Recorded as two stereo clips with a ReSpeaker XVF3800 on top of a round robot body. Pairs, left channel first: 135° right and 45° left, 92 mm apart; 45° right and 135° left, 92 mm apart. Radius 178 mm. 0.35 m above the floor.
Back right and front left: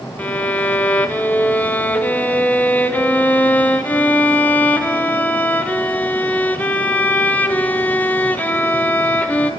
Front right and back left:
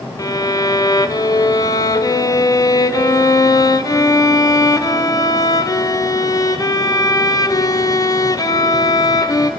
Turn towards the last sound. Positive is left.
turn(degrees=-70)